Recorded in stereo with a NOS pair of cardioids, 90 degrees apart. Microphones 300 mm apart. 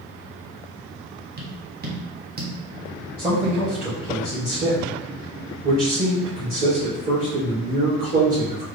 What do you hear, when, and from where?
1.4 s tapping: 35° right, 1.3 m
3.2 s a man speaking: 30° right, 1.7 m